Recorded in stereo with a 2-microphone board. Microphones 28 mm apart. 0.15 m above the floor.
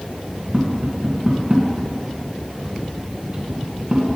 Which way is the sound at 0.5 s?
25° right (ahead or behind).